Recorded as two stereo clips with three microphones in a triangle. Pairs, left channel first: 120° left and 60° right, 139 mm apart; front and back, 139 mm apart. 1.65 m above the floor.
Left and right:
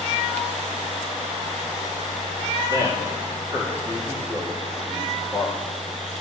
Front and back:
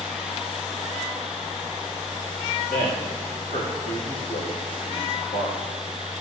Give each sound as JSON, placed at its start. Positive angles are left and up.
{"t": 2.7, "sound": "a man speaking", "azimuth_deg": 5, "distance_m": 2.0}